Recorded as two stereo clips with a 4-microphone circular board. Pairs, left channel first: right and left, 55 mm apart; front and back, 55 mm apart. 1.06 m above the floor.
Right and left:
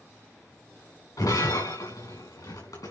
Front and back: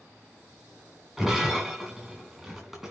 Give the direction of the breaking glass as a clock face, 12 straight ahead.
3 o'clock.